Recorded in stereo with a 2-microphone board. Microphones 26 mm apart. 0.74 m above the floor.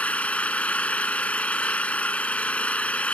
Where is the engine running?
65° left (ahead or behind).